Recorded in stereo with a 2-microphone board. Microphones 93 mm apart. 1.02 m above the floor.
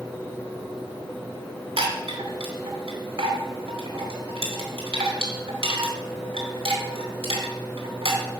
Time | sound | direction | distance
1.8 | a chime | 80° right | 2 m